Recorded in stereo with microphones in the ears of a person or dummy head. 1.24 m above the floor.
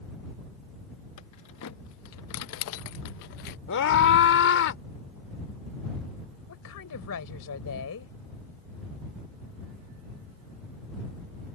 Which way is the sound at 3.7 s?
75° left (ahead or behind).